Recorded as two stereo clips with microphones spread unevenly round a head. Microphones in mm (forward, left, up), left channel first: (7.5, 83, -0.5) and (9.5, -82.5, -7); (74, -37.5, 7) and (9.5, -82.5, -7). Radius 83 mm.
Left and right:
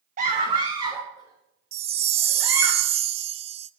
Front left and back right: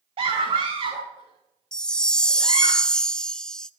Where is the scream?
140° right, 1.2 m; by 2.7 s 170° right, 5 m.